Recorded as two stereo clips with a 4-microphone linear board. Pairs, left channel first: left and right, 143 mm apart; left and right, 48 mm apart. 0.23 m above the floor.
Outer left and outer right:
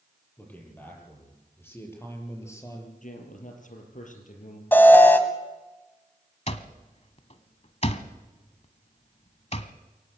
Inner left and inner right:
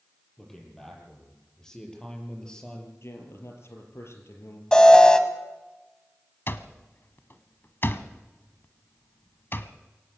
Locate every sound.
0.4 s a man speaking: 10° left (ahead or behind), 8 m; by 2.9 s 20° left (ahead or behind), 5.5 m
3.0 s a man speaking: 65° left (ahead or behind), 4.5 m
4.7 s an alarm: 15° left (ahead or behind), 1.6 m
6.5 s an alarm clock: 50° left (ahead or behind), 1.1 m